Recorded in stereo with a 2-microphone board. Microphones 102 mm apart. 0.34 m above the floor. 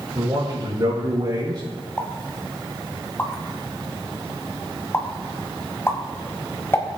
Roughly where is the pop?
Left.